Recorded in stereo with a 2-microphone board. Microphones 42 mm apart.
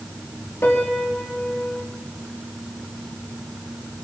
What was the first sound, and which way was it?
A piano, 65° left (ahead or behind).